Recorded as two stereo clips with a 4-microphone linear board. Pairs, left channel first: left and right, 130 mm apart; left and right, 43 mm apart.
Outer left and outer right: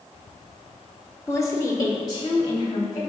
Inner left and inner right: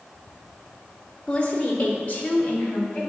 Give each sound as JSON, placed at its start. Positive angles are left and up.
{"t": 1.3, "sound": "a woman speaking", "side_deg": 20, "distance_m": 0.8}